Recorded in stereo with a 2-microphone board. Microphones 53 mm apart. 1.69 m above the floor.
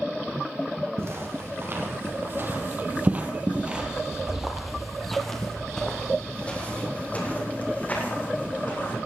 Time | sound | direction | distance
1.0 | footsteps | 55° right (ahead or behind) | 3 m